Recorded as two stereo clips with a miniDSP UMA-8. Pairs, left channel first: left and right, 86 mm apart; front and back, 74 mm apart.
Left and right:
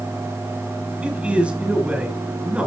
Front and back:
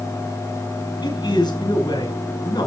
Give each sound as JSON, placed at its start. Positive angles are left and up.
{"t": 1.0, "sound": "a man speaking", "azimuth_deg": -15, "distance_m": 5.0}